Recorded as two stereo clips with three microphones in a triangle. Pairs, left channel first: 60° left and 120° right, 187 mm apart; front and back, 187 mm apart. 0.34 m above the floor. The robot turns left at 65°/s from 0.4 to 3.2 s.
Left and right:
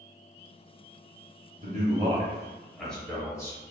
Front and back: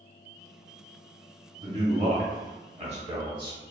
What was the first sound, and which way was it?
A man speaking, 130° right.